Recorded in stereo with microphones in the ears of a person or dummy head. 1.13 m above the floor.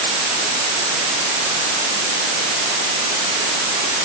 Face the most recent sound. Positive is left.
No sound to turn to.